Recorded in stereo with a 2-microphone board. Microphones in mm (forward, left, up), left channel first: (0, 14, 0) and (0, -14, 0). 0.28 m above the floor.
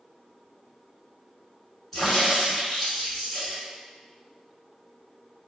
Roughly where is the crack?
Centre.